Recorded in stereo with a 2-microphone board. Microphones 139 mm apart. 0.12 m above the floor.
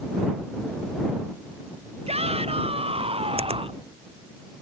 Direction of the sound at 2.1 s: 45° right (ahead or behind).